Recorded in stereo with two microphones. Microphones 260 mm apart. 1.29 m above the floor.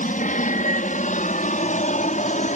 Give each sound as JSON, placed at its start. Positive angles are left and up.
{"t": 0.0, "sound": "an aircraft", "side_deg": 30}